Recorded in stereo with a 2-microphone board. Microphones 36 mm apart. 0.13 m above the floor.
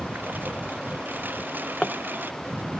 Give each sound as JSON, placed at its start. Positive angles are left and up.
{"t": 0.0, "sound": "a lawn mower", "side_deg": -65}
{"t": 1.4, "sound": "a drawer", "side_deg": 30}